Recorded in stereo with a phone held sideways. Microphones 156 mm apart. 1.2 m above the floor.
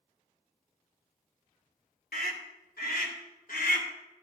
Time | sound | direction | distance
2.1 | a scream | 85° left | 3 m